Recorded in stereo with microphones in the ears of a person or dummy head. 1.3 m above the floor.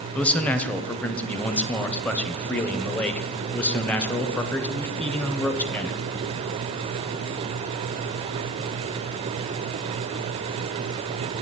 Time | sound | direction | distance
0.1 | a man speaking | 5° left (ahead or behind) | 0.7 m